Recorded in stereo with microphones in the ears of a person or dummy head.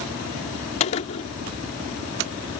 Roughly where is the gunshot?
Left.